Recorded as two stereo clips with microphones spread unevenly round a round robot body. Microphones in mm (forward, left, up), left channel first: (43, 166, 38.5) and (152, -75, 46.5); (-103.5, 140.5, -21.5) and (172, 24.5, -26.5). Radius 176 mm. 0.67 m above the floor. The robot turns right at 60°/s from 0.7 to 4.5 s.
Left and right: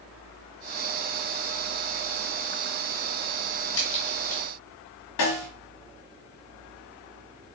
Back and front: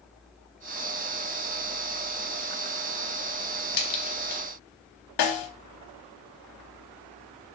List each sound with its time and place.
3.7 s a crack: 165° left, 1.2 m; by 4.4 s 155° right, 1.2 m
5.2 s a snare drum: 145° left, 0.8 m